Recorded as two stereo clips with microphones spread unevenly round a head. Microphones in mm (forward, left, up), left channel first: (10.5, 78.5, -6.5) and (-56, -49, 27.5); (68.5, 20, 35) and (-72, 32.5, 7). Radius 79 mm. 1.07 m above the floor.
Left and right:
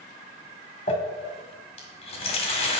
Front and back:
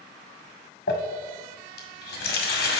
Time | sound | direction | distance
0.9 | crumpling | 5° left | 1.8 m